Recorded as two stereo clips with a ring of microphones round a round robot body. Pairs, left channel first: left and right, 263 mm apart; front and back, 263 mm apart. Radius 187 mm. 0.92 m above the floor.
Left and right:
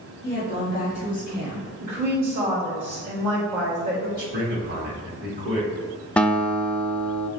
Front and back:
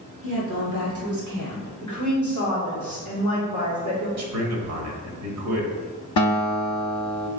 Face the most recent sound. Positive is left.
turn(degrees=5)